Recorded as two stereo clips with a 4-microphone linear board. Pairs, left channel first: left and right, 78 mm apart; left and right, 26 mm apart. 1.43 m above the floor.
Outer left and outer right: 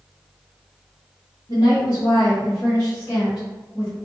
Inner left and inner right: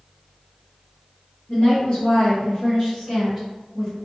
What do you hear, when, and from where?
1.5 s a woman speaking: 60° left (ahead or behind), 1.0 m; by 4.0 s 15° right (ahead or behind), 1.2 m